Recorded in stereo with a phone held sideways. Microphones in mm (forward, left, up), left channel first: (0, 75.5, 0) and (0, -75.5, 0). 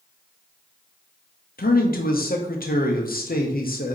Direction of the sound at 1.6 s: 75° left (ahead or behind).